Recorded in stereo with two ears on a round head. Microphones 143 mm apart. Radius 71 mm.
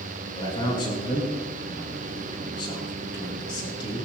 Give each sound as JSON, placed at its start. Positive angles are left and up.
{"t": 0.4, "sound": "a man speaking", "side_deg": 30, "distance_m": 4.5}